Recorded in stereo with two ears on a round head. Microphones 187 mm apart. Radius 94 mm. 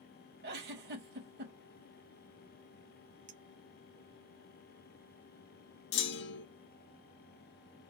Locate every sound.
0.4 s a giggle: 55° right (ahead or behind), 2 m
3.3 s a clink: 40° right (ahead or behind), 0.8 m
5.9 s a clunk: 55° left (ahead or behind), 1.0 m